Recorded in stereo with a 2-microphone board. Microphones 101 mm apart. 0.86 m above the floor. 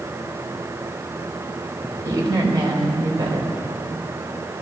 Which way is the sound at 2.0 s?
35° right (ahead or behind).